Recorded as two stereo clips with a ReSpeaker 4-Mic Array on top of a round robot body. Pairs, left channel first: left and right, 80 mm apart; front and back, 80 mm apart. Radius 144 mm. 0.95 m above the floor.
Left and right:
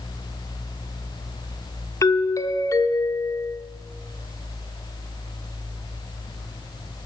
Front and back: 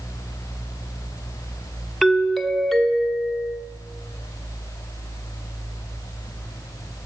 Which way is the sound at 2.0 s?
90° left.